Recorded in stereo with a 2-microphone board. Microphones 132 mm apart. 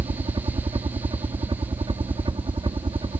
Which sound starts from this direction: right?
A helicopter, at 0.0 s.